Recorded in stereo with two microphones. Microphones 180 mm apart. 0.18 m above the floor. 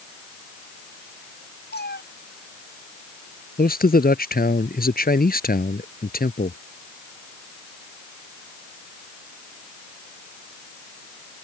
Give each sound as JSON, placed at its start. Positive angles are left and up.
{"t": 1.7, "sound": "a cat meowing", "side_deg": 75}
{"t": 3.6, "sound": "a man speaking", "side_deg": 65}